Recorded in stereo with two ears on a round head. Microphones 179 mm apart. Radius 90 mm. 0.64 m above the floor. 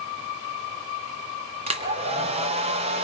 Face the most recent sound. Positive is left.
turn(degrees=-30)  # may be behind; listen again after turning